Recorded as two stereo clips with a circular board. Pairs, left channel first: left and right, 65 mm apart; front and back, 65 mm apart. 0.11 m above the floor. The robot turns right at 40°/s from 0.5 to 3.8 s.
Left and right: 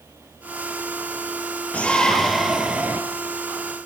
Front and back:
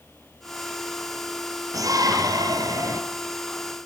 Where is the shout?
155° left, 3.5 m; by 3.0 s 150° right, 3.5 m.